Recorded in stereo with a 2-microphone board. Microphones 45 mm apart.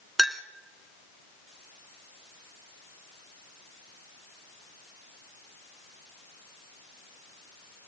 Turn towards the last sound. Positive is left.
turn(degrees=0)  # may be behind; listen again after turning